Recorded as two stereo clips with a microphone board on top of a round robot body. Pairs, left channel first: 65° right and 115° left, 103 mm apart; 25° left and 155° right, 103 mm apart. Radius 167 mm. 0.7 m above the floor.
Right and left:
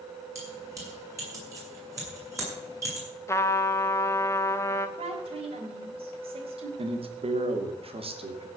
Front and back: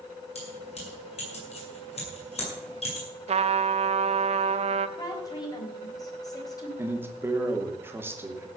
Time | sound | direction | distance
0.3 | keys jangling | 50° left | 7.5 m
3.3 | a trumpet | 135° right | 0.7 m
5.0 | a woman speaking | 80° left | 3.5 m
6.8 | a man speaking | 135° left | 2.5 m